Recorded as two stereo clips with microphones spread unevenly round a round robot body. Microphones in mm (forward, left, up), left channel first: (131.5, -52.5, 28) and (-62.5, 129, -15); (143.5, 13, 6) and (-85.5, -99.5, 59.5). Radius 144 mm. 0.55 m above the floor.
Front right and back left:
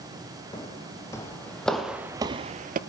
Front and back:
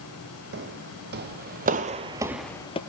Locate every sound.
0.5 s footsteps: 115° right, 1.4 m; by 2.8 s 95° left, 0.5 m